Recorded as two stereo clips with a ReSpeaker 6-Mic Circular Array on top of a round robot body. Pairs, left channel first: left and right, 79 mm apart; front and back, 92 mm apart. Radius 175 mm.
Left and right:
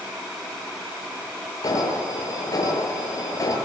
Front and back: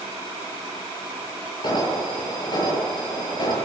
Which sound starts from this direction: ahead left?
An alarm, at 1.6 s.